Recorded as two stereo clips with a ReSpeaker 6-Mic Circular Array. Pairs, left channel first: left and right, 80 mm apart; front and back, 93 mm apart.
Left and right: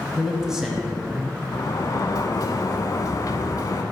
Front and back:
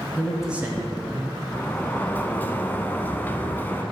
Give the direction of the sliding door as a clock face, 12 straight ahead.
10 o'clock.